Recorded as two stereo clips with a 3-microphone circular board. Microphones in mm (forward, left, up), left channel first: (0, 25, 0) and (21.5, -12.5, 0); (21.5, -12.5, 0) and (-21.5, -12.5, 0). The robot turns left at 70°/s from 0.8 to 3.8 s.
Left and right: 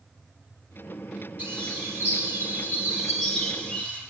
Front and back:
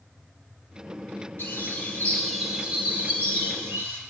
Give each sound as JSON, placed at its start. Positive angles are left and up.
{"t": 1.4, "sound": "a bird", "azimuth_deg": -20, "distance_m": 4.0}